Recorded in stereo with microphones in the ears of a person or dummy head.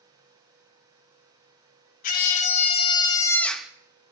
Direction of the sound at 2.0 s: 45° left (ahead or behind).